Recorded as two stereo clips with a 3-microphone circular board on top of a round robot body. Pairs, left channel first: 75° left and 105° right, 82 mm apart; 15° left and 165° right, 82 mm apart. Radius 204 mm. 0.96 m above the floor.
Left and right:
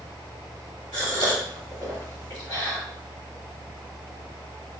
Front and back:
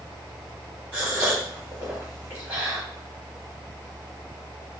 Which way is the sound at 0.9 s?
120° left.